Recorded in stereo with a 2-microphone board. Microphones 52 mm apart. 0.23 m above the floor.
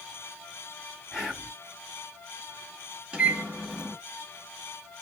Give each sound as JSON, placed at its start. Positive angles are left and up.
{"t": 1.1, "sound": "whispering", "side_deg": 0, "distance_m": 1.5}
{"t": 3.1, "sound": "a microwave", "side_deg": -20, "distance_m": 0.8}